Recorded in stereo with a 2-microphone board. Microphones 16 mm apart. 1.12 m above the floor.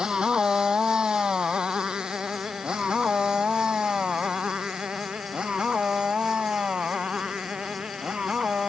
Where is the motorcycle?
60° right (ahead or behind); by 8.7 s 75° right (ahead or behind).